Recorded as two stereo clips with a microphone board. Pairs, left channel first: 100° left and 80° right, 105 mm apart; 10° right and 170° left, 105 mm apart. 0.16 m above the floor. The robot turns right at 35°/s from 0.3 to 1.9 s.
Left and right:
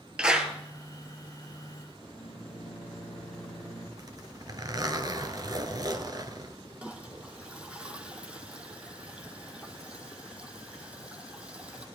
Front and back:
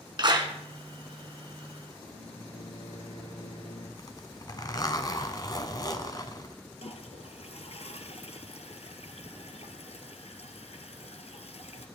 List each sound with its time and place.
0.2 s a clap: 160° right, 1.6 m; by 0.5 s 150° right, 1.6 m
2.0 s a microwave: 10° left, 3 m
4.0 s a zipper: 50° right, 1.2 m
6.8 s a toilet flushing: straight ahead, 1.2 m